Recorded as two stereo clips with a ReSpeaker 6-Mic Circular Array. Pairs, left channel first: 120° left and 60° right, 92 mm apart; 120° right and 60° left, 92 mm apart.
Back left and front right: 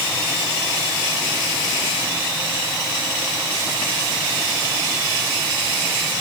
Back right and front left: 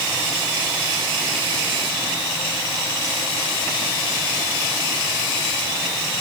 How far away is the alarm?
I don't hear an alarm.